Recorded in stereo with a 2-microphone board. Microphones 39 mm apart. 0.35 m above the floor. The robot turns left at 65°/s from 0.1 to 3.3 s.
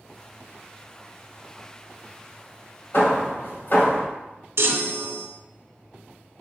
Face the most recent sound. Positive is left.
turn(degrees=-70)  # may be behind; listen again after turning